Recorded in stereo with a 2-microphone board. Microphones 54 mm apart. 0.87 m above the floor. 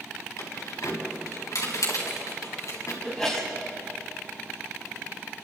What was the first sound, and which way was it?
Keys jangling, 75° left (ahead or behind).